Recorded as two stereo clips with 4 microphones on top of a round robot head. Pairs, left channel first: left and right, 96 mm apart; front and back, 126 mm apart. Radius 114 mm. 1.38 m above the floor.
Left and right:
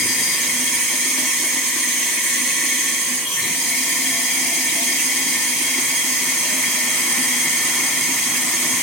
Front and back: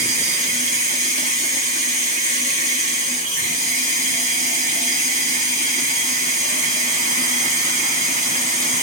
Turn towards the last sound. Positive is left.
turn(degrees=175)